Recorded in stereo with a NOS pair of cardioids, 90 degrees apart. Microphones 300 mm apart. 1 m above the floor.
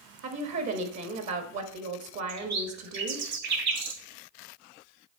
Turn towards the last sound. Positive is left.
turn(degrees=-65)